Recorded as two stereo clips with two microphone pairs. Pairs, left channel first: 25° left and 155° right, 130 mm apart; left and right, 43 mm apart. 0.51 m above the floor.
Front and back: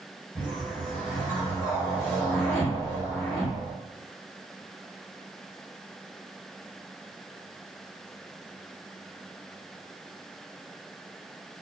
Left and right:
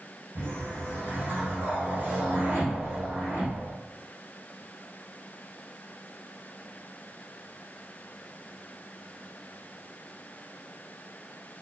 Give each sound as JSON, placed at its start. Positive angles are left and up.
{"t": 0.3, "sound": "a whoosh", "azimuth_deg": -70, "distance_m": 2.0}